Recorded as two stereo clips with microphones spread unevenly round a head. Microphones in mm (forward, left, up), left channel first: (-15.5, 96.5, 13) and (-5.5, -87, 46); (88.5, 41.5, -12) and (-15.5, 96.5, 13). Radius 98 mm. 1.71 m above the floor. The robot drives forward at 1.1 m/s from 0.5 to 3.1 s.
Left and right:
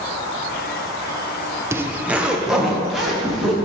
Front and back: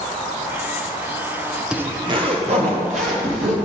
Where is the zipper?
140° right, 0.6 m; by 3.6 s 175° right, 1.9 m.